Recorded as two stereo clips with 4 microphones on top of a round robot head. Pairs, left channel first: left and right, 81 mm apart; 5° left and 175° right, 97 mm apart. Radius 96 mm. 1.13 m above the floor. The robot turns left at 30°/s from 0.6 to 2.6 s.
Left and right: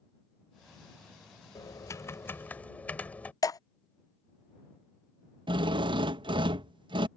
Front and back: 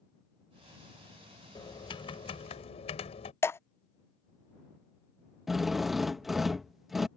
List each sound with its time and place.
1.6 s typing on a keyboard: 50° left; by 3.3 s 20° left
3.4 s dripping: 65° left
5.5 s a drill: 85° right